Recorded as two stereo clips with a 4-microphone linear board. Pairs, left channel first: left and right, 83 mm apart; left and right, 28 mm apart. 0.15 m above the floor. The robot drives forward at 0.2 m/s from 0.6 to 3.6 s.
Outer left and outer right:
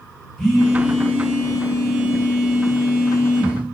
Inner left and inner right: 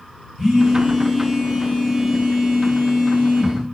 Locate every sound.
0.4 s a phone buzzing: 5° left (ahead or behind), 0.9 m